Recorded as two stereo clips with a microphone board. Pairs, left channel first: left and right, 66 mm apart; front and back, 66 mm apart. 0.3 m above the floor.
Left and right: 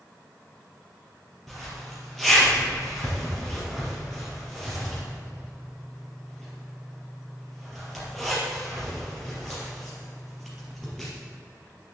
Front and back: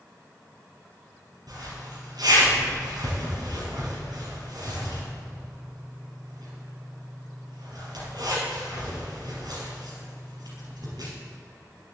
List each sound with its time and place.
1.5 s a zipper: straight behind, 3.5 m